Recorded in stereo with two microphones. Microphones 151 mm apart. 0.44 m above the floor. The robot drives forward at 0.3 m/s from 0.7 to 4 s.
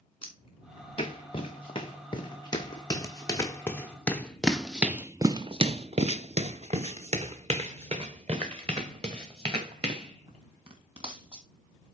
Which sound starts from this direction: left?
Footsteps, at 0.2 s.